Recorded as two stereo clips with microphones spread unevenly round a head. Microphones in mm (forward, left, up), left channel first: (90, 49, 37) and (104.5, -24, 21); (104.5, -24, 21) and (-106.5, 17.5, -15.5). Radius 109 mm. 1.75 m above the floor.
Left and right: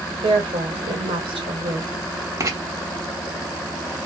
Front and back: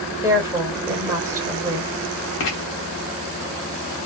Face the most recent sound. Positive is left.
turn(degrees=-25)